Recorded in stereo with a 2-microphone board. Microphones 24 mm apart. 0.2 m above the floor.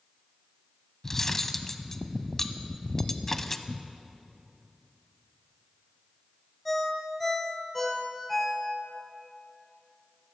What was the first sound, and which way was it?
Cutlery clinking, 15° left (ahead or behind).